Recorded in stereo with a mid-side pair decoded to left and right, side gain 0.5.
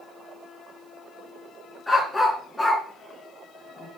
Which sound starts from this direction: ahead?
A dog barking, at 1.9 s.